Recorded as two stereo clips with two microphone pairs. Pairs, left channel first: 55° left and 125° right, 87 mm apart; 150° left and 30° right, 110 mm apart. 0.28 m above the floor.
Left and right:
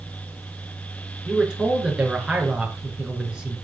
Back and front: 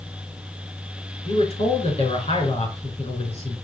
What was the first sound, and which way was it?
A man speaking, 155° left.